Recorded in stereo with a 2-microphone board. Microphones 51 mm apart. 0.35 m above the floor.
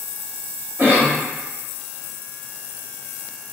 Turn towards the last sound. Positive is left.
turn(degrees=-45)  # may be behind; listen again after turning